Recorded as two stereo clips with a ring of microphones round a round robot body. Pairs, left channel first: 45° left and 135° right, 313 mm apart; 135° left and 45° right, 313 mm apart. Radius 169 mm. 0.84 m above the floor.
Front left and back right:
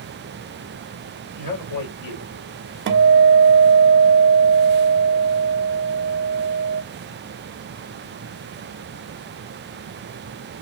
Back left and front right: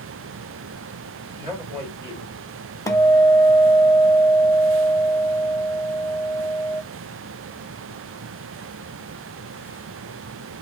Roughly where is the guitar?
Behind right.